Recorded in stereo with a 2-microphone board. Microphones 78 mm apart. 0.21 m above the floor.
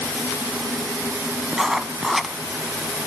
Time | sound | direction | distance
1.5 | writing | 5° right (ahead or behind) | 0.8 m